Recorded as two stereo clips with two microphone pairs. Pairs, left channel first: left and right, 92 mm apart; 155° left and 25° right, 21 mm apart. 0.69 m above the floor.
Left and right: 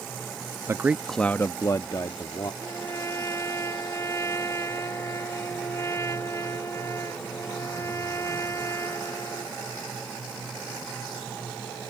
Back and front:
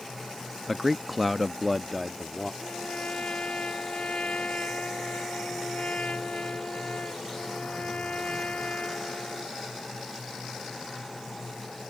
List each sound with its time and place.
0.7 s a man speaking: 115° right; by 2.5 s 65° left
2.6 s a trumpet: 150° left